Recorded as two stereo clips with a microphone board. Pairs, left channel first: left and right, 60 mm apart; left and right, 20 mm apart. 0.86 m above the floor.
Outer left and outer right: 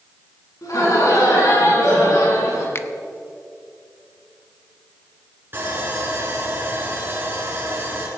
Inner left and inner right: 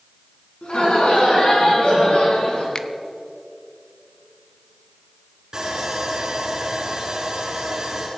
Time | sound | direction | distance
0.6 | laughter | 75° left (ahead or behind) | 8 m
2.8 | a finger snap | 40° left (ahead or behind) | 0.8 m
5.5 | sawing | 35° right (ahead or behind) | 5.5 m